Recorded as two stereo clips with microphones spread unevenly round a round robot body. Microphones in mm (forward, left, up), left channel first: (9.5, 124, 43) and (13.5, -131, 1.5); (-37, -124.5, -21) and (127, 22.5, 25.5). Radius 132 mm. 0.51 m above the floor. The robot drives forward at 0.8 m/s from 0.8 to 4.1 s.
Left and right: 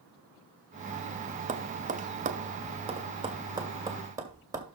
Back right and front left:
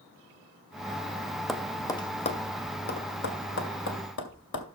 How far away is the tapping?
About 1.0 m.